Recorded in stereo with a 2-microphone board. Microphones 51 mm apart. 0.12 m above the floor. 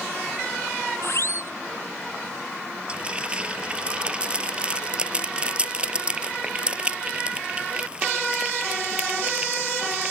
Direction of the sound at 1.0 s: 60° left (ahead or behind).